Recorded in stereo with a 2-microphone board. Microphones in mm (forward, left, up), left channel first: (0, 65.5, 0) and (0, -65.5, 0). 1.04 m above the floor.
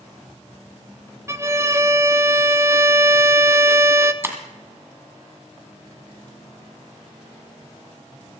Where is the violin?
25° right (ahead or behind), 0.6 m.